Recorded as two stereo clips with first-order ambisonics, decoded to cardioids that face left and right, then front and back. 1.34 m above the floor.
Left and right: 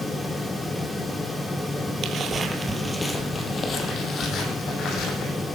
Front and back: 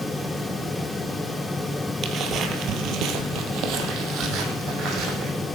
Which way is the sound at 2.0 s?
135° right.